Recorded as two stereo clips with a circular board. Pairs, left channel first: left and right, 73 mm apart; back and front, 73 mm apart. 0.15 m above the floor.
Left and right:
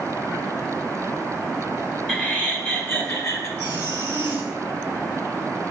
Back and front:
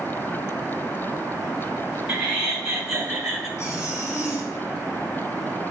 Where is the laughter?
60° left, 1.4 m; by 3.5 s 80° left, 1.9 m.